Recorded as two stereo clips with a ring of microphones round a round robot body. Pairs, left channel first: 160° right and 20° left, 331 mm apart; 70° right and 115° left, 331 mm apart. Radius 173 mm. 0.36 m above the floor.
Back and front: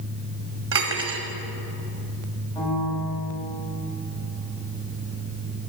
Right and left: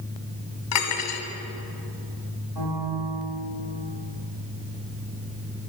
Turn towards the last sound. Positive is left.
turn(degrees=120)